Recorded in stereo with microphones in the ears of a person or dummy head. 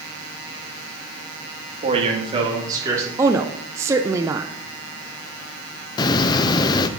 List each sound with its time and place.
1.8 s a man speaking: 30° right (ahead or behind), 2 m; by 3.1 s 10° right (ahead or behind), 3.5 m
3.2 s a woman speaking: 10° right (ahead or behind), 0.6 m
6.0 s a hiss: 30° left (ahead or behind), 0.6 m